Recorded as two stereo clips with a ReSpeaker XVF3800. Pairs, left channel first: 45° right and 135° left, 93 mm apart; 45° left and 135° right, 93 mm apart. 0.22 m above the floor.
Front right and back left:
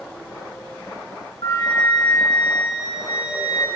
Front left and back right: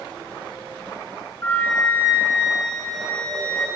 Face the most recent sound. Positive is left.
turn(degrees=-15)